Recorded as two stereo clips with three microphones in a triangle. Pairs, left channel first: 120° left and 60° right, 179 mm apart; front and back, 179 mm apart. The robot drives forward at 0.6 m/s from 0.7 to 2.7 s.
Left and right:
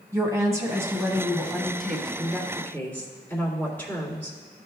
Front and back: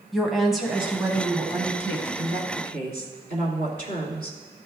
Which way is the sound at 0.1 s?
90° right.